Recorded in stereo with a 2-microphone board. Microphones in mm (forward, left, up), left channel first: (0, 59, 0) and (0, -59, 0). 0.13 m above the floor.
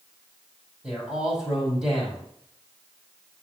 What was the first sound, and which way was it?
A man speaking, 5° right (ahead or behind).